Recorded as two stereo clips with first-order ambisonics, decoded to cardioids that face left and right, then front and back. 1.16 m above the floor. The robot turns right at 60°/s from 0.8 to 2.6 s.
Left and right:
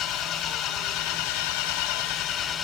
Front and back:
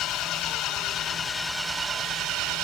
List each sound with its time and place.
0.0 s an engine running: 50° left, 3.5 m; by 2.6 s 155° left, 3.5 m